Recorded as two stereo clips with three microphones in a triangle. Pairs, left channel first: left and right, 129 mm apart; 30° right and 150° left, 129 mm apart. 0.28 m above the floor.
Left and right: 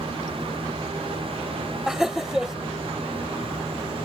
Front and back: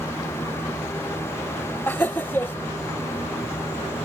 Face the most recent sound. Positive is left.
turn(degrees=-15)